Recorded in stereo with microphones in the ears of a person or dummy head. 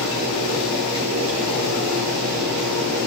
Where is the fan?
75° right (ahead or behind), 4.5 m.